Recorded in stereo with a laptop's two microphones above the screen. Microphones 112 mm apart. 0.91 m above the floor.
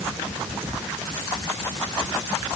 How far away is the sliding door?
No sliding door in this recording.